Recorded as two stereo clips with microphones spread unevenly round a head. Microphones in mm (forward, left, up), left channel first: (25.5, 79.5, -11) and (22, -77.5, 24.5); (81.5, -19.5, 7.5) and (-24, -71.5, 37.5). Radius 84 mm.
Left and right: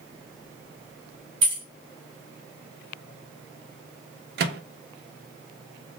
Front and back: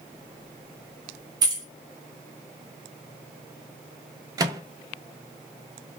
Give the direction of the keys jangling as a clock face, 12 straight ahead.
4 o'clock.